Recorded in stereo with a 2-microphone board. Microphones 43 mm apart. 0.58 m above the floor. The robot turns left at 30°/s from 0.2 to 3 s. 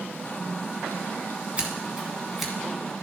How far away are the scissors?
About 1.6 m.